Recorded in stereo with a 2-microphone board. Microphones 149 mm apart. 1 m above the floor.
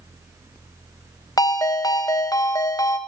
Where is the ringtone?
25° left (ahead or behind), 0.5 m.